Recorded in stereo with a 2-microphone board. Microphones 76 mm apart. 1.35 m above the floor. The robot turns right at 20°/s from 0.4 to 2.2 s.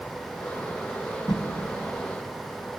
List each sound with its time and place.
1.3 s a whoosh: 60° left (ahead or behind), 0.9 m